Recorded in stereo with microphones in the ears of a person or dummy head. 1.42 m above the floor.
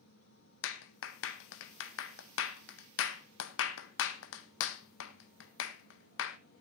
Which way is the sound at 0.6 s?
75° left (ahead or behind).